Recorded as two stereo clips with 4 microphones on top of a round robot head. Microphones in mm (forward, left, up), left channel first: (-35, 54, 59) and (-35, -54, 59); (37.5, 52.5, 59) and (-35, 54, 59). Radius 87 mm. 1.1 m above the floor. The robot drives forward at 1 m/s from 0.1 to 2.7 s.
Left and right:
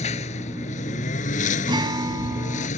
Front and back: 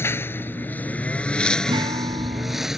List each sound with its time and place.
0.0 s a lawn mower: 55° left; by 2.8 s 95° left
1.7 s a guitar: 140° right; by 2.7 s 145° right